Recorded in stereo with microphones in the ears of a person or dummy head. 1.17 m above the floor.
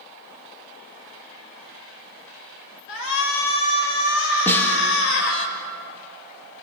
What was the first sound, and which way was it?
A shout, 80° left.